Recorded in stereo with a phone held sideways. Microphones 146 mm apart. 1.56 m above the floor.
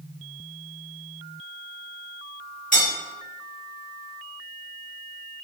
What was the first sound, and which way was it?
Cutlery clinking, 60° left (ahead or behind).